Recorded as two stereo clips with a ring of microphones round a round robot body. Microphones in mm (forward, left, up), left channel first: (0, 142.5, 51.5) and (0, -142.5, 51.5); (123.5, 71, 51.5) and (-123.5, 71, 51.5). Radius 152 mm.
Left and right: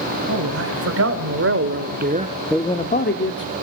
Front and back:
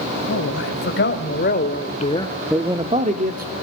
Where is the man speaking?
50° right, 3.5 m; by 3.5 s 130° left, 1.7 m.